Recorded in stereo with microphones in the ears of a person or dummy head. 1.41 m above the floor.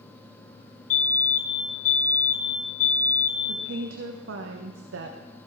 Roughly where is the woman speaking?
Right.